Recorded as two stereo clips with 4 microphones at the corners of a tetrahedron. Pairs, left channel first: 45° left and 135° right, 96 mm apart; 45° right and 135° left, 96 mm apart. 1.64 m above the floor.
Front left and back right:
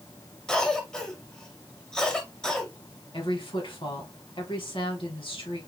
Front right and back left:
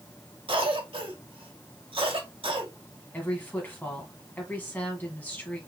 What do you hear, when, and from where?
0.5 s a cough: 125° left, 1.4 m
3.1 s a woman speaking: 25° left, 2.0 m